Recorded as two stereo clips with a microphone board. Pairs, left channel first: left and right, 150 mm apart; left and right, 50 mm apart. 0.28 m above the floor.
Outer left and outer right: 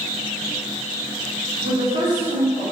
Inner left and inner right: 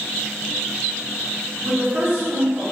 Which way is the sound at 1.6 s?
35° right (ahead or behind).